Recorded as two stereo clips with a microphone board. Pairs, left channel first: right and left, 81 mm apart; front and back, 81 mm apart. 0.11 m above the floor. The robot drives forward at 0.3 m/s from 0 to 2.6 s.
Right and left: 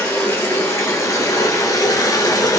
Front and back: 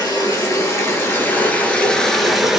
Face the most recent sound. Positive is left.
turn(degrees=-100)